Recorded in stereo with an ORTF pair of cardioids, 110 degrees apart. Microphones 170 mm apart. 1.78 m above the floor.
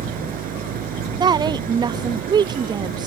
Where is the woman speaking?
25° right.